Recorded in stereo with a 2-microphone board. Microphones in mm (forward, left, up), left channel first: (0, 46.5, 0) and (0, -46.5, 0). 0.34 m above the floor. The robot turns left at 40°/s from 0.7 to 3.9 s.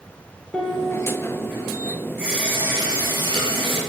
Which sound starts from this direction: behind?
A piano, at 0.5 s.